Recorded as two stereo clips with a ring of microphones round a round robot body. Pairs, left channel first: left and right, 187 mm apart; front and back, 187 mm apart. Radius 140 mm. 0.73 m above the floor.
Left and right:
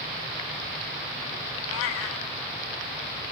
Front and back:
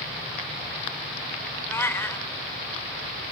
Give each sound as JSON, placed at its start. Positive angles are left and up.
{"t": 1.7, "sound": "a cat meowing", "azimuth_deg": 80, "distance_m": 0.8}